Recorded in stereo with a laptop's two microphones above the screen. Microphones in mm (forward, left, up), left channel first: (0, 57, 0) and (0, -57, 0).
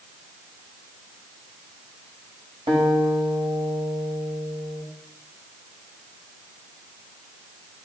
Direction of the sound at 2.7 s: 55° right (ahead or behind).